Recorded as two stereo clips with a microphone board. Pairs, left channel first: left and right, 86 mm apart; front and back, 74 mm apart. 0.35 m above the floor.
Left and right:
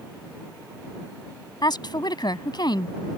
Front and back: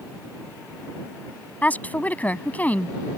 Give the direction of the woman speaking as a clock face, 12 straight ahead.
10 o'clock.